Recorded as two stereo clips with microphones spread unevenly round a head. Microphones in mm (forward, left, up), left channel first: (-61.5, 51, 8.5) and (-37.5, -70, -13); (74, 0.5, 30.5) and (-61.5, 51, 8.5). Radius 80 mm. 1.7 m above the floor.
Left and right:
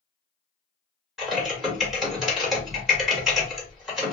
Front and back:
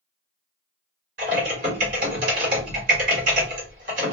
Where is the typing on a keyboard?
175° right, 1.7 m.